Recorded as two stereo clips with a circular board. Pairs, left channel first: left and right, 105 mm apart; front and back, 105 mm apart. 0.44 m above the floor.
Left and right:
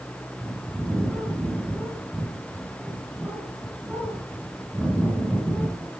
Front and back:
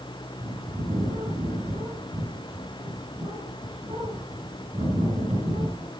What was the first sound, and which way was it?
A bird, 170° right.